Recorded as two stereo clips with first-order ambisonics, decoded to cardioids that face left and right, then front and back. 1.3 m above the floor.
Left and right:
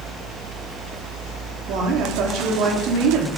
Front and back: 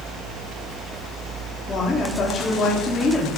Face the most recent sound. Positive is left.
turn(degrees=-70)